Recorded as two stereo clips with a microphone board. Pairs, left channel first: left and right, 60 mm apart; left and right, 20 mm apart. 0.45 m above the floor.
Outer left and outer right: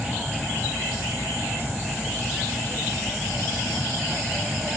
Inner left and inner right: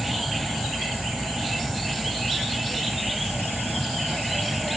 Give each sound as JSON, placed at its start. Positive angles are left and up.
{"t": 0.0, "sound": "an aircraft", "side_deg": -15}